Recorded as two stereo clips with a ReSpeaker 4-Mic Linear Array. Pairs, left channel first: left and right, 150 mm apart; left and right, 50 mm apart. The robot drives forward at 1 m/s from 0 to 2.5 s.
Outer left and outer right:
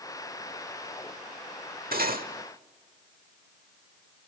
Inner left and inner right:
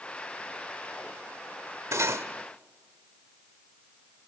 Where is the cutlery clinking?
80° right, 1.3 m.